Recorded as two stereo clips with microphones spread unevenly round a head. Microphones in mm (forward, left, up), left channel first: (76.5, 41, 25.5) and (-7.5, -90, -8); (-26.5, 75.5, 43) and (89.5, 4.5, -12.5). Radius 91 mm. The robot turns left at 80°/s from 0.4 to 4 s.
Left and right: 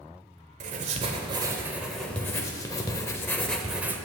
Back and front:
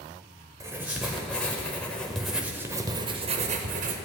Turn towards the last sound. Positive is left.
turn(degrees=-40)